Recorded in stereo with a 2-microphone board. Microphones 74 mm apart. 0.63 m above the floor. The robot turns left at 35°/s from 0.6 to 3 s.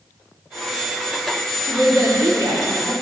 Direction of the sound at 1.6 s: 60° right.